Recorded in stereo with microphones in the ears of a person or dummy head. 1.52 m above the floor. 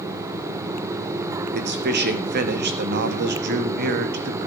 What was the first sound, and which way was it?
A man speaking, 55° right (ahead or behind).